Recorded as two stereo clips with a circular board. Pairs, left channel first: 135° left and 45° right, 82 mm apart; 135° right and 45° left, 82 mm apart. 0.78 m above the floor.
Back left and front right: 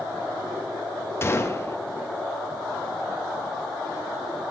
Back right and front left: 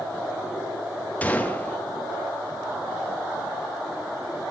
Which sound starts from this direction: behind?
A gunshot, at 1.2 s.